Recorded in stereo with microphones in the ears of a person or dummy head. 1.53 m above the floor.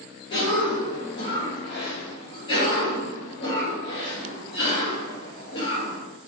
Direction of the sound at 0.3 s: 30° left (ahead or behind).